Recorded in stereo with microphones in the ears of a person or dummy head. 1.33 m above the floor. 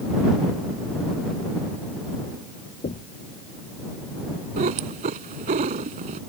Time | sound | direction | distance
2.8 | knocking | 30° left (ahead or behind) | ?
4.6 | a cat meowing | 45° right (ahead or behind) | ?